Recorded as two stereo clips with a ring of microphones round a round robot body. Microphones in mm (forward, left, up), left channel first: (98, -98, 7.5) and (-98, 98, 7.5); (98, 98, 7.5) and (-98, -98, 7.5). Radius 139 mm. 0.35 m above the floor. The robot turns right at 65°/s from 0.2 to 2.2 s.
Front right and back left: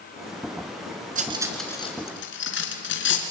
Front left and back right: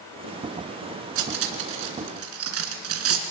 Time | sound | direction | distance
1.1 | cutlery clinking | 165° right | 2.5 m